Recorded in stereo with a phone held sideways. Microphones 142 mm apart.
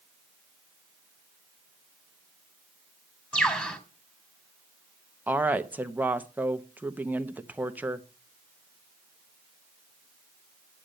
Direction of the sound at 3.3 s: 10° left (ahead or behind).